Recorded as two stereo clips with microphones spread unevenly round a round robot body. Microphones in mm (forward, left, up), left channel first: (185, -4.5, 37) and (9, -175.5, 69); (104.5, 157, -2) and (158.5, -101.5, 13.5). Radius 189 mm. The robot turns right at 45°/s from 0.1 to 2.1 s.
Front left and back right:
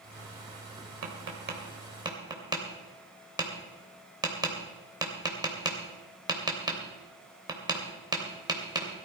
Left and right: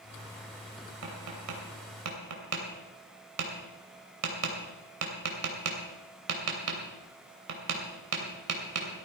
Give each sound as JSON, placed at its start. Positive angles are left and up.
{"t": 1.0, "sound": "tapping", "azimuth_deg": -105, "distance_m": 3.0}